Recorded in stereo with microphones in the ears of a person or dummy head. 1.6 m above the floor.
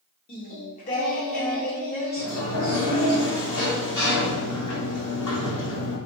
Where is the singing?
45° left (ahead or behind), 0.9 m.